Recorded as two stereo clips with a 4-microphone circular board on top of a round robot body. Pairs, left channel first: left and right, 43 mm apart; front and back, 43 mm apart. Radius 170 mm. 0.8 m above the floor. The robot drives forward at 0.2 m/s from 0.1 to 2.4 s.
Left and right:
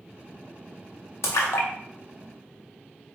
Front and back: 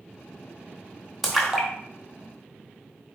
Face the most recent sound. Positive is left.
turn(degrees=110)